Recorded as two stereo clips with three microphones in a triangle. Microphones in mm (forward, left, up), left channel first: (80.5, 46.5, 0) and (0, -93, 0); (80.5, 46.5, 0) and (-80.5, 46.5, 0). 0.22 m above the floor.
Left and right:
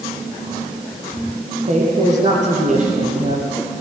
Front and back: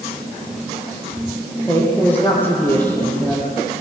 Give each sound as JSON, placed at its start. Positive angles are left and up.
{"t": 1.7, "sound": "a woman speaking", "azimuth_deg": -80, "distance_m": 6.5}